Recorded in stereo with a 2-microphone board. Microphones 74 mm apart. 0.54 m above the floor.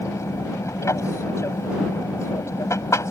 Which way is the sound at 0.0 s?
40° left (ahead or behind).